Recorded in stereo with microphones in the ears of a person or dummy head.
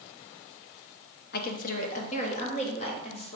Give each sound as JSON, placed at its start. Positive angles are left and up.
{"t": 1.3, "sound": "a woman speaking", "side_deg": 40, "distance_m": 0.6}